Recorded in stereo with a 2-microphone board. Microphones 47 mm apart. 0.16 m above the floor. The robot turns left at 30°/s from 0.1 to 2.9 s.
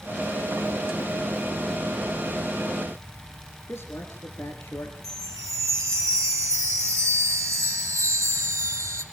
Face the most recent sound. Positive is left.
turn(degrees=-75)  # may be behind; listen again after turning